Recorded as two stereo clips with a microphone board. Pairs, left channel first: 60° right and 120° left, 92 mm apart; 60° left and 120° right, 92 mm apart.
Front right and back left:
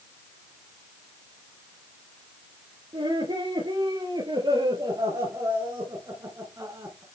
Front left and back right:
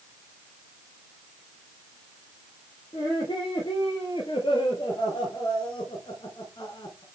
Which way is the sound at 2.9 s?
90° left.